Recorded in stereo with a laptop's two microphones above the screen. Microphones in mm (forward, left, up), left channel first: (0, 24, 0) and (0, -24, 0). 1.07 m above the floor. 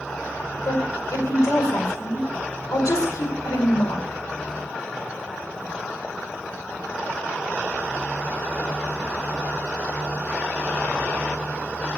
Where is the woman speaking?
80° left, 5 m.